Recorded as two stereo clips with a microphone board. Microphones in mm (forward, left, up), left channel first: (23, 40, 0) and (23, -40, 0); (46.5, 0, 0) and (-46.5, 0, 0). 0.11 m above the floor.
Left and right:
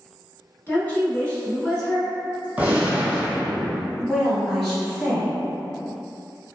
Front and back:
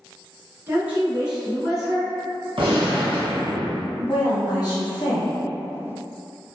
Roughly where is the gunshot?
Behind.